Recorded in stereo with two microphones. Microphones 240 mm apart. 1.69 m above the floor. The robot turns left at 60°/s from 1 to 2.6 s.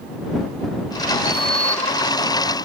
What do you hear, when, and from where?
1.2 s a sliding door: 50° left (ahead or behind)